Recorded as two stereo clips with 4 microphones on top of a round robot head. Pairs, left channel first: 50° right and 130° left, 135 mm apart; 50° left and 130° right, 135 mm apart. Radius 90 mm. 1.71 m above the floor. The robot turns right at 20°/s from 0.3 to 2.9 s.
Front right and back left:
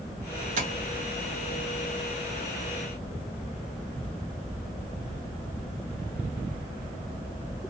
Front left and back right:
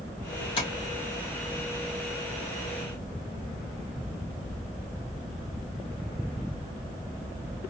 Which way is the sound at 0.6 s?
100° left.